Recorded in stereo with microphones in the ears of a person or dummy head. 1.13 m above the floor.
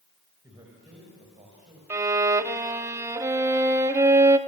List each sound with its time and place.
0.4 s a man speaking: 15° right (ahead or behind), 5 m; by 1.8 s 30° right (ahead or behind), 5.5 m
1.9 s a violin: 20° right (ahead or behind), 1.0 m